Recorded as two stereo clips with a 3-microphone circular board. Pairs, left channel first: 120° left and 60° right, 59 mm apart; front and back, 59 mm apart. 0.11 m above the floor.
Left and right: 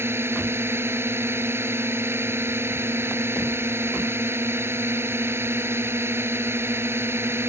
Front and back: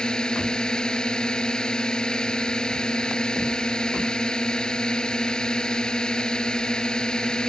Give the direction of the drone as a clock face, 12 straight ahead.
2 o'clock.